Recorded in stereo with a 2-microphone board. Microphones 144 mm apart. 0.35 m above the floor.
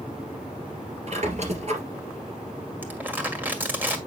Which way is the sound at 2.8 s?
15° right (ahead or behind).